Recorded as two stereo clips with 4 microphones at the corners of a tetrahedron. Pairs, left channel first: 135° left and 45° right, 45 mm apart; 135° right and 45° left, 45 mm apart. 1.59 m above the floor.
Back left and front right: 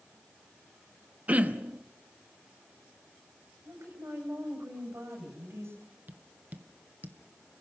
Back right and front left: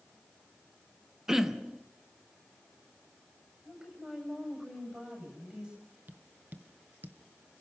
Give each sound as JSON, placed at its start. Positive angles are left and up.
{"t": 1.3, "sound": "throat clearing", "azimuth_deg": -25, "distance_m": 1.1}
{"t": 3.6, "sound": "a woman speaking", "azimuth_deg": -30, "distance_m": 9.5}
{"t": 6.1, "sound": "tapping", "azimuth_deg": 0, "distance_m": 1.4}